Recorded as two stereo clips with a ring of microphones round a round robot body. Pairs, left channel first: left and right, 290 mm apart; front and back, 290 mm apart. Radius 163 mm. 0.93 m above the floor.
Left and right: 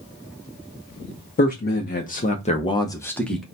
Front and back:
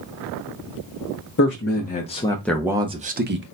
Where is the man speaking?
40° left, 1.1 m; by 3.4 s straight behind, 0.9 m.